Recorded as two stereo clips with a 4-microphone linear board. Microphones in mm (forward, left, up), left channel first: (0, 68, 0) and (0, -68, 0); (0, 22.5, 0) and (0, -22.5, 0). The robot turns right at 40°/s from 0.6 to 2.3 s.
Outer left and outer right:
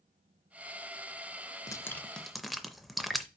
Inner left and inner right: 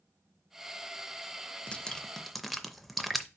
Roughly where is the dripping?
Left.